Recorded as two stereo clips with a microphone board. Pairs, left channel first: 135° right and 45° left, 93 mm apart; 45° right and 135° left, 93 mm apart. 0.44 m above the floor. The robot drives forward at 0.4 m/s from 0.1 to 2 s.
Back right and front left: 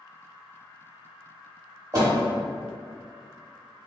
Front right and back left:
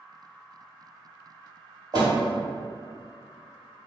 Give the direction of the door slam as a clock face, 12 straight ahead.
9 o'clock.